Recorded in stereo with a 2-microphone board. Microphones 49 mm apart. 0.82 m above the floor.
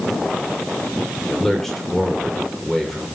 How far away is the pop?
I don't hear a pop.